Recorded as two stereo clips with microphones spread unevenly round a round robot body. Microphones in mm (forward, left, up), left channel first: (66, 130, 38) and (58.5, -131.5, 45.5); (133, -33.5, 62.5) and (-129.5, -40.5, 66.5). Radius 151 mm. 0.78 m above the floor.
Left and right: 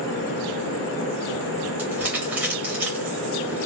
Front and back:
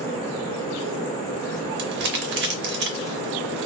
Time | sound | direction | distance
1.8 | crumpling | 170° right | 0.6 m